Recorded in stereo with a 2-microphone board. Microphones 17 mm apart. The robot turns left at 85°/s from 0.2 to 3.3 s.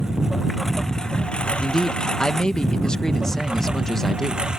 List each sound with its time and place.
0.0 s a lawn mower: 140° right; by 4.6 s 45° right
1.6 s a man speaking: 175° right; by 4.4 s 40° left